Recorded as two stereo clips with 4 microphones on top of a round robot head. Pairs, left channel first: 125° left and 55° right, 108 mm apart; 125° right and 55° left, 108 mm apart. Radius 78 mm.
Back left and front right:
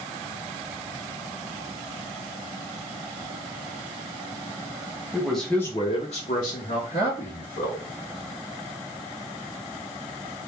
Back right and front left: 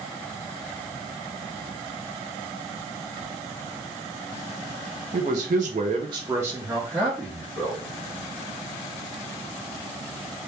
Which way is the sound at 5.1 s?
30° left.